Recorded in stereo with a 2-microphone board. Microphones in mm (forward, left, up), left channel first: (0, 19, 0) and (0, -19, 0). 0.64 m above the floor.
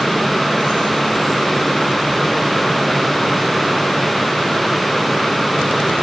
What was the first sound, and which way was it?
Only background noise.